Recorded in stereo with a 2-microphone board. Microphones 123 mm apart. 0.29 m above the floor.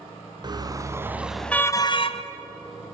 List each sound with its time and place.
0.4 s a car horn: 35° right (ahead or behind), 2 m; by 2.2 s 55° left (ahead or behind), 1.3 m